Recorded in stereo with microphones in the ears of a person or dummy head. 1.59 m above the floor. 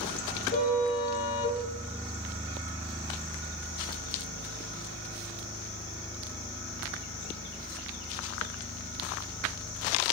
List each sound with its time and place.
0.5 s a car horn: 45° left (ahead or behind), 8.5 m